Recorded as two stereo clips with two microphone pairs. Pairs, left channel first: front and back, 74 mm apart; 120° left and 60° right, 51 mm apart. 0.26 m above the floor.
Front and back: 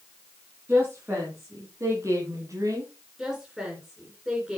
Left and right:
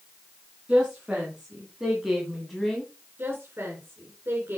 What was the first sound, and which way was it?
A woman speaking, 130° right.